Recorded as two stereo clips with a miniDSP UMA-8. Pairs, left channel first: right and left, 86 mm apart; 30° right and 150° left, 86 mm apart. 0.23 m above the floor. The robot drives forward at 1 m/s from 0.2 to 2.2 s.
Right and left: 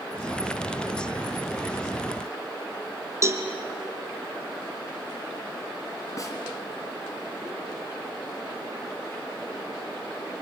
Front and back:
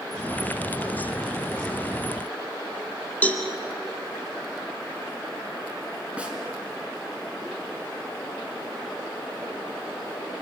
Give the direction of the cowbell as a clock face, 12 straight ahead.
11 o'clock.